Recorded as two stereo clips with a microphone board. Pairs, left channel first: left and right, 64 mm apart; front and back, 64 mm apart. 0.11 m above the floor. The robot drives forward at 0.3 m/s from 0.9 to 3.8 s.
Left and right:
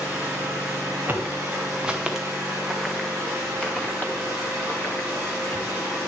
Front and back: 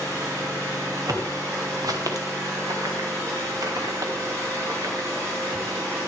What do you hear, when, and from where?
0.0 s an engine running: 170° right, 5.5 m
1.1 s footsteps: 150° right, 1.9 m; by 5.6 s 135° left, 2.5 m